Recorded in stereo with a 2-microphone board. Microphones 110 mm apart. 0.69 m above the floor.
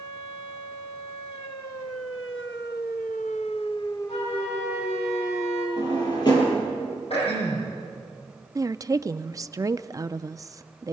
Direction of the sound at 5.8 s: 40° left (ahead or behind).